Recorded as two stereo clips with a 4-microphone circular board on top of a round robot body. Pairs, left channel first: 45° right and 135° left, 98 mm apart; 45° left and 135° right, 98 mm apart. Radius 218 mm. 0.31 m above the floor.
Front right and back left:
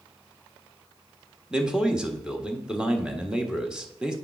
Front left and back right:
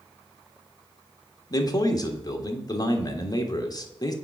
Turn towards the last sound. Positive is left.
turn(degrees=55)